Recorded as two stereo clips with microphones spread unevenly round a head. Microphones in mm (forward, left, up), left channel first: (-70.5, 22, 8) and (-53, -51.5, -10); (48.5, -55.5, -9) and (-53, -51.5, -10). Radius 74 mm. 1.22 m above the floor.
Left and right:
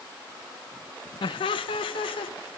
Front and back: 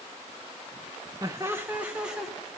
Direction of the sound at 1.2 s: 110° left.